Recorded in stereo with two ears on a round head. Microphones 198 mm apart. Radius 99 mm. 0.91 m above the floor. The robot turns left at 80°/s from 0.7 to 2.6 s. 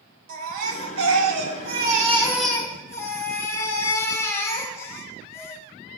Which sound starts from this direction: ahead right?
A baby crying, at 0.3 s.